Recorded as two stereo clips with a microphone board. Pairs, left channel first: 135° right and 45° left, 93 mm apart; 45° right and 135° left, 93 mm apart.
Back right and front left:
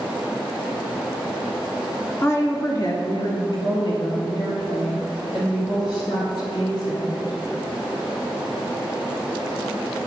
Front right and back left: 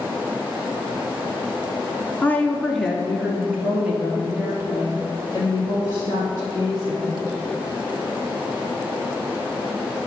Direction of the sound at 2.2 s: 95° right.